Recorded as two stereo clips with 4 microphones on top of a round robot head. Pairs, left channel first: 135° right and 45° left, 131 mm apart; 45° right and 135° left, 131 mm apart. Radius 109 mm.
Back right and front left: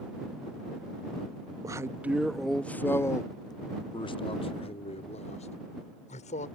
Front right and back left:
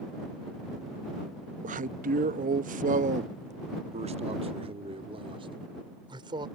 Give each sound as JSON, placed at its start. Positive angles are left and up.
{"t": 1.6, "sound": "a man speaking", "azimuth_deg": 110}